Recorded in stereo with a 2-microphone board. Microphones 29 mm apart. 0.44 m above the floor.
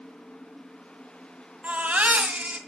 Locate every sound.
1.6 s a baby crying: 65° right (ahead or behind), 1.9 m